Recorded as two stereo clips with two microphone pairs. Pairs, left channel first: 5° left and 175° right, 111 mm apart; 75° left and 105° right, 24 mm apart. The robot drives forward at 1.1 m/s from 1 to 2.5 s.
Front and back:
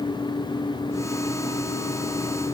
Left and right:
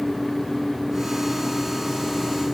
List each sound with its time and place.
Only background noise.